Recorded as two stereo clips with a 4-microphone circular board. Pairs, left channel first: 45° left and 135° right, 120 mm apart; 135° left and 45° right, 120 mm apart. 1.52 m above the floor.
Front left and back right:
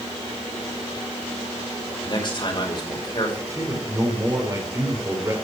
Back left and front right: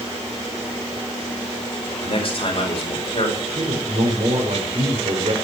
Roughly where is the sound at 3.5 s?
Right.